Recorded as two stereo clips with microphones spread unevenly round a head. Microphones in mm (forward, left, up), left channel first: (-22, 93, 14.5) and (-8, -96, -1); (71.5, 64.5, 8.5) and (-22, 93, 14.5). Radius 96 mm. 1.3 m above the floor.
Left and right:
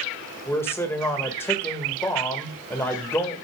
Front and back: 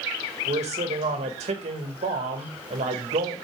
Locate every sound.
0.5 s a man speaking: 175° left, 1.8 m